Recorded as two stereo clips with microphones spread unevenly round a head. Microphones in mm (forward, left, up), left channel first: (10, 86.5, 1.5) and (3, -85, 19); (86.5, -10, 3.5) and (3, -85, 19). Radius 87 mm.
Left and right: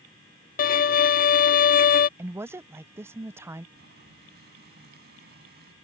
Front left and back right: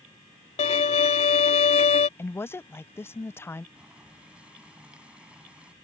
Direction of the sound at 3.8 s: 60° right.